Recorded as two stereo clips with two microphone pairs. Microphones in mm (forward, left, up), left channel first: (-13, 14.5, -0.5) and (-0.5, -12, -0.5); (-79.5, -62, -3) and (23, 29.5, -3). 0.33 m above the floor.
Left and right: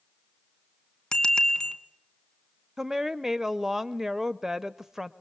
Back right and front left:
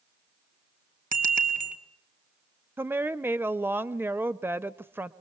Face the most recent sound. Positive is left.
turn(degrees=-10)